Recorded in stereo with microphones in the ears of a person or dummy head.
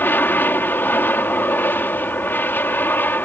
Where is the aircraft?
5° left (ahead or behind).